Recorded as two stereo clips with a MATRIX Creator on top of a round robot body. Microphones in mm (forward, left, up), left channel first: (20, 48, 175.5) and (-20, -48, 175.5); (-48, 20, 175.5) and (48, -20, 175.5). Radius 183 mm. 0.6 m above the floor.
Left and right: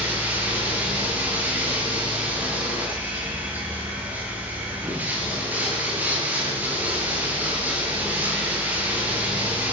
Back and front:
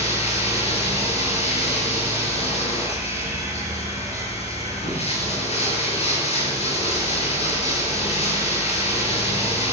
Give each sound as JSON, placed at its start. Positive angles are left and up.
{"t": 0.0, "sound": "running water", "azimuth_deg": 175, "distance_m": 7.5}